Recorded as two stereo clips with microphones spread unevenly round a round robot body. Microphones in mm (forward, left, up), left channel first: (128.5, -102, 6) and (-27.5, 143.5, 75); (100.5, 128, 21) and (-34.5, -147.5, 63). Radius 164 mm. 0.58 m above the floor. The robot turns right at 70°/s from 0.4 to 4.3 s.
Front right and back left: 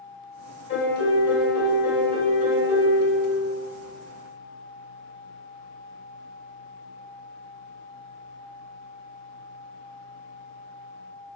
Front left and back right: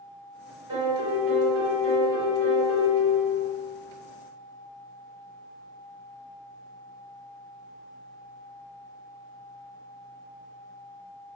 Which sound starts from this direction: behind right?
A piano, at 0.7 s.